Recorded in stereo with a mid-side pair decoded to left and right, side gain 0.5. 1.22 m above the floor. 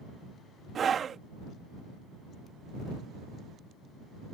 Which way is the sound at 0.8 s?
45° right.